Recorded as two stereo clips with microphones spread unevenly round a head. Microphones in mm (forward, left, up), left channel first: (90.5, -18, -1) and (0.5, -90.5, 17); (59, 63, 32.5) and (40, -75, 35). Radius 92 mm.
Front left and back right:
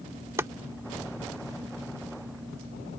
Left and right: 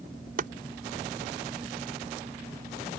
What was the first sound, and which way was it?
Chopping, 80° right.